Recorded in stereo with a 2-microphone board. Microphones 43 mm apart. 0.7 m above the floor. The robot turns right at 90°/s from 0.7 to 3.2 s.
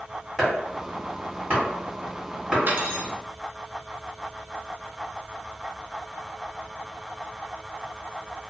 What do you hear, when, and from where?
0.4 s chopping: 5° left (ahead or behind), 1.7 m; by 2.6 s 15° right (ahead or behind), 1.7 m
2.7 s cutlery clinking: 110° right, 0.5 m; by 3.1 s 70° right, 0.5 m